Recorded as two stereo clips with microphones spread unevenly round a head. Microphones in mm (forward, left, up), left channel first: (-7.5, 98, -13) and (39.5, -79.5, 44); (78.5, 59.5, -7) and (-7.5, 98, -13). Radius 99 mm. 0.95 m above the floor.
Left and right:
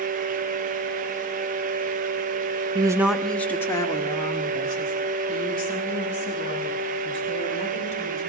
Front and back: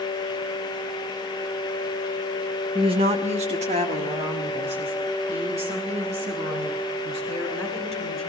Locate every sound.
2.8 s a woman speaking: 145° right, 0.6 m; by 8.2 s 165° left, 7.5 m